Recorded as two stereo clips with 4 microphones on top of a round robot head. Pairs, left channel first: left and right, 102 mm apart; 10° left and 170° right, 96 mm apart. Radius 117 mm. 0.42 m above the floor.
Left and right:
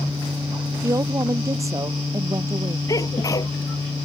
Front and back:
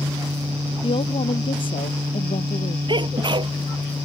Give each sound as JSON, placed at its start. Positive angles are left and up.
{"t": 0.8, "sound": "a woman speaking", "azimuth_deg": -30}
{"t": 2.9, "sound": "a sneeze", "azimuth_deg": 155}